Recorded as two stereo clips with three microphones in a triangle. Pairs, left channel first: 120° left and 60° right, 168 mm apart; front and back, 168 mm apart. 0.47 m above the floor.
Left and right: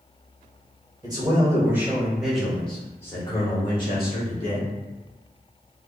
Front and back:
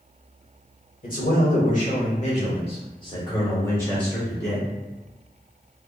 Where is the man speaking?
Straight ahead, 1.8 m; by 4.7 s 90° left, 1.7 m.